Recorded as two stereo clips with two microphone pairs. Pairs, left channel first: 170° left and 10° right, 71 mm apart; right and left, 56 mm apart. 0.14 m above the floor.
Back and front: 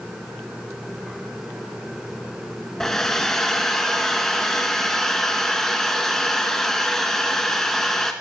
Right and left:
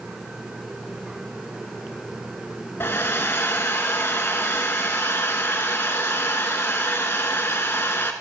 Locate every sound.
2.8 s a hair dryer: 110° right, 1.1 m